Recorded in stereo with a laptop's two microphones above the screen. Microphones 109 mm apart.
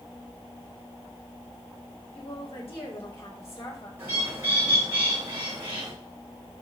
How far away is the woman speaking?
About 4.5 m.